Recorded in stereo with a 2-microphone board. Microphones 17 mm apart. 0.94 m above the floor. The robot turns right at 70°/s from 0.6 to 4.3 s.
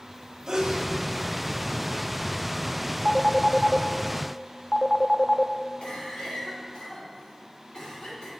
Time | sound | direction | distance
0.5 | a sneeze | 45° right (ahead or behind) | 1.4 m
3.0 | a phone ringing | 35° right (ahead or behind) | 0.5 m
5.8 | a cough | 70° left (ahead or behind) | 3 m